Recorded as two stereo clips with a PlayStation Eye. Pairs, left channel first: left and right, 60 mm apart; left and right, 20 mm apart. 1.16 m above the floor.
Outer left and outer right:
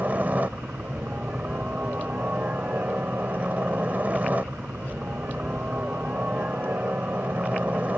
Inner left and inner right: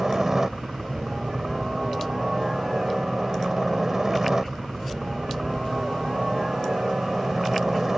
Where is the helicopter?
25° right (ahead or behind).